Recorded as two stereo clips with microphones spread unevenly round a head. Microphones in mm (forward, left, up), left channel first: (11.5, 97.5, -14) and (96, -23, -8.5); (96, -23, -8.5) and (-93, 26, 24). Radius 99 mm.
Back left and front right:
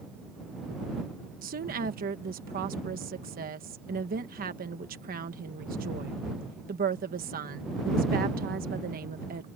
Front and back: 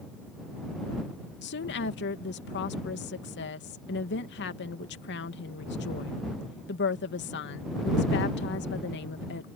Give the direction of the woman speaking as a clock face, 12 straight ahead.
1 o'clock.